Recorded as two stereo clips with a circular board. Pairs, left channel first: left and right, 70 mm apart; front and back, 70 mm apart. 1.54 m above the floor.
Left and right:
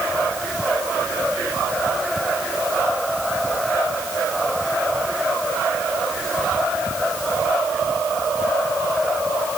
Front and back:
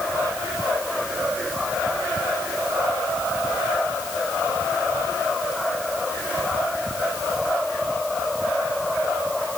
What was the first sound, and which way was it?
Only background noise.